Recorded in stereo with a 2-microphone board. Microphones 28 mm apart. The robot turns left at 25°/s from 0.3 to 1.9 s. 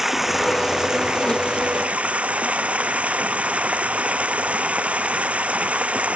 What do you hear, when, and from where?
0.0 s running water: 10° right; by 6.2 s 50° right